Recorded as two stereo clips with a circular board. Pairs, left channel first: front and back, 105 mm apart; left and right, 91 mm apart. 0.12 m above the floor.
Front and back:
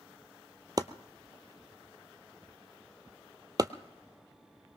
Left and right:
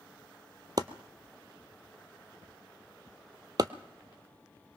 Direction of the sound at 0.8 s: 130° right.